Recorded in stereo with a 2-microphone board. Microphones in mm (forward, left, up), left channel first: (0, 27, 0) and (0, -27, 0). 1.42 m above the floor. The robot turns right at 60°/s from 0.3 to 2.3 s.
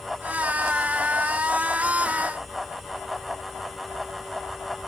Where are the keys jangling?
No keys jangling in this recording.